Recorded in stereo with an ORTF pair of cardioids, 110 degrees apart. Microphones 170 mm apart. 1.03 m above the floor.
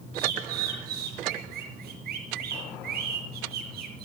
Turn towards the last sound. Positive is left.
turn(degrees=-65)